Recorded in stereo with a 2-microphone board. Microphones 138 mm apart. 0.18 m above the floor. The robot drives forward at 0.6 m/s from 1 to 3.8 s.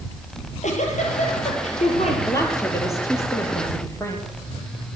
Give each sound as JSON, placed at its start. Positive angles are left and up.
{"t": 0.4, "sound": "a giggle", "side_deg": 65, "distance_m": 5.0}
{"t": 2.3, "sound": "a woman speaking", "side_deg": 25, "distance_m": 4.5}